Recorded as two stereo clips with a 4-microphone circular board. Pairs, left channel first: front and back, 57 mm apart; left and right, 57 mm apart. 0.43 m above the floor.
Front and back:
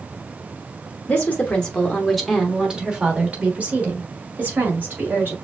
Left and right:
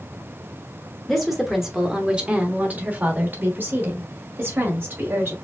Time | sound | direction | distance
1.1 | a woman speaking | 15° left | 1.1 m